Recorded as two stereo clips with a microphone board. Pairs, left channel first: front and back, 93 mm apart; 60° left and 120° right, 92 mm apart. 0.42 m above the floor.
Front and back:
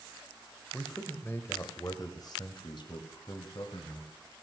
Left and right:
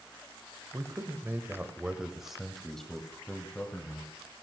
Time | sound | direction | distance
0.7 | a man speaking | 80° right | 1.3 m